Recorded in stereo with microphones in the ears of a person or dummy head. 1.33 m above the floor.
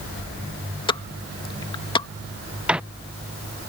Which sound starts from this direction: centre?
A microwave, at 2.7 s.